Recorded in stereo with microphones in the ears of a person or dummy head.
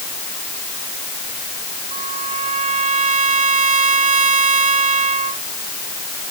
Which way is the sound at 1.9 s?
30° right (ahead or behind).